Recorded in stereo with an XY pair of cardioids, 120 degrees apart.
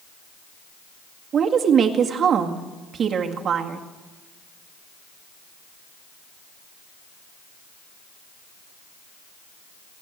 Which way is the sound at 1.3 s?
45° right.